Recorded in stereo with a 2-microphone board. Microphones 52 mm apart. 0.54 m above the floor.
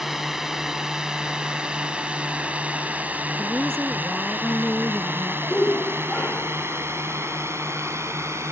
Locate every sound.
0.0 s a drone: 10° right (ahead or behind); by 8.5 s 65° right (ahead or behind)
3.4 s a woman speaking: 15° left (ahead or behind)
5.5 s a shout: 30° left (ahead or behind)